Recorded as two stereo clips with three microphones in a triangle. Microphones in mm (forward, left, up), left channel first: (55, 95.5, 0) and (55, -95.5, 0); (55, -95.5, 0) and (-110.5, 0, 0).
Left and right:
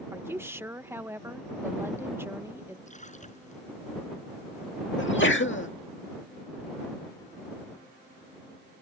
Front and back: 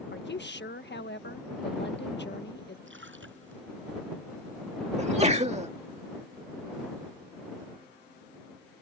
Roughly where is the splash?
Behind left.